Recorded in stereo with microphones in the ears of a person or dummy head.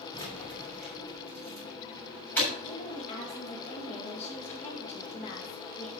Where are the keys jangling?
25° left (ahead or behind), 5.5 m; by 2.5 s 5° left (ahead or behind), 6.5 m.